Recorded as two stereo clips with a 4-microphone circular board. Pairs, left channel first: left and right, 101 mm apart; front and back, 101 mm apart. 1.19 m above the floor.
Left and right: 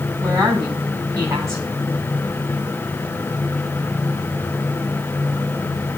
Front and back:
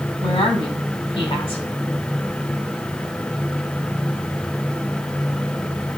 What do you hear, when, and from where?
0.2 s a woman speaking: 30° right, 8 m